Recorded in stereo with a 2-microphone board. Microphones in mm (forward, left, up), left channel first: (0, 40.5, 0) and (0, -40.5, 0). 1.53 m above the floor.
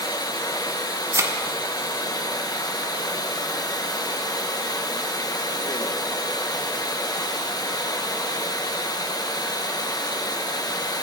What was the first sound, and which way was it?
Running water, 55° left (ahead or behind).